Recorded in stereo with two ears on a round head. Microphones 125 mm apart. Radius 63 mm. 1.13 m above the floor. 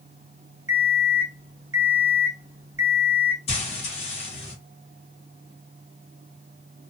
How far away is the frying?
About 1.1 m.